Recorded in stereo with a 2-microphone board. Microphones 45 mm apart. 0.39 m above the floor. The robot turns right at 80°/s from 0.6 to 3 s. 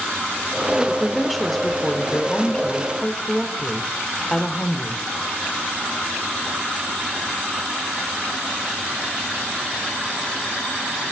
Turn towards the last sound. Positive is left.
turn(degrees=15)  # may be behind; listen again after turning